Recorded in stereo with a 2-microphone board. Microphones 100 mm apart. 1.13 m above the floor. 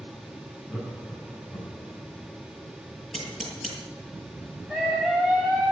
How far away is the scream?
About 9 m.